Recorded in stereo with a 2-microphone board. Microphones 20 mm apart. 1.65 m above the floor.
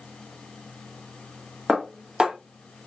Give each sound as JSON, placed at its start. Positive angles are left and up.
{"t": 1.7, "sound": "dishes clattering", "side_deg": -50, "distance_m": 1.4}